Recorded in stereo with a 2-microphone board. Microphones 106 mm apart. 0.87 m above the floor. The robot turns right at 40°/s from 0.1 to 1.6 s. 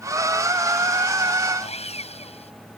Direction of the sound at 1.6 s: 85° left.